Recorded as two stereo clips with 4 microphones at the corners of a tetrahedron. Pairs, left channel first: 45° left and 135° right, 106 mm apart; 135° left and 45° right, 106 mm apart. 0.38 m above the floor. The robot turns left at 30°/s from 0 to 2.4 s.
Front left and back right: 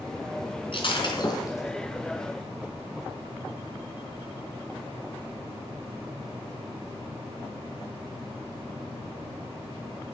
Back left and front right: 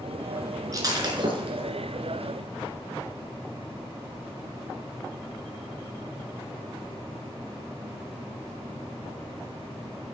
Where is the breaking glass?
10° left, 3 m; by 1.8 s 20° right, 3 m.